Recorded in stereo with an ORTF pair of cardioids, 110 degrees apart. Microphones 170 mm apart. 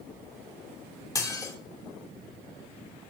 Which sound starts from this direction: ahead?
Dishes clattering, at 1.1 s.